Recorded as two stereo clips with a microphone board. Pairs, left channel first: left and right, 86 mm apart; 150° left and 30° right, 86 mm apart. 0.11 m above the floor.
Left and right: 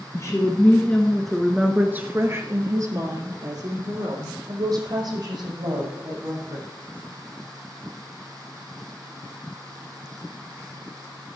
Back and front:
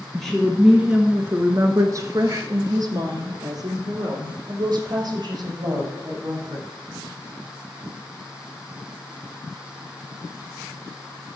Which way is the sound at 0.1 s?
70° left.